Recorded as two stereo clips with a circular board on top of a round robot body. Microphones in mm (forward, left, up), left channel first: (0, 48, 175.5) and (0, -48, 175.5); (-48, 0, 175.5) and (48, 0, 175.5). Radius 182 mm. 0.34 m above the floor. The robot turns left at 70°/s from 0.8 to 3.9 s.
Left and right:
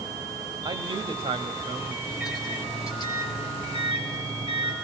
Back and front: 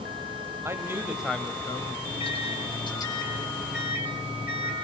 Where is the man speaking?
60° right, 3 m; by 1.9 s 140° right, 3 m.